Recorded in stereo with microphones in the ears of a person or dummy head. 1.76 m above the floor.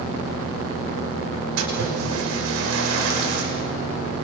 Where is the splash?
85° right, 6 m.